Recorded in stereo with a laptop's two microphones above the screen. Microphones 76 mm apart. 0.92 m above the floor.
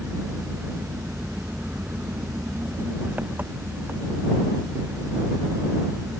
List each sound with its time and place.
0.0 s an engine running: 25° right (ahead or behind)